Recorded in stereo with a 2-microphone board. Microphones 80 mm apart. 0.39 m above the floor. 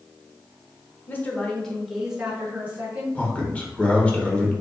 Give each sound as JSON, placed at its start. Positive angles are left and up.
{"t": 1.1, "sound": "a woman speaking", "side_deg": 25, "distance_m": 0.9}
{"t": 3.1, "sound": "a man speaking", "side_deg": 15, "distance_m": 0.8}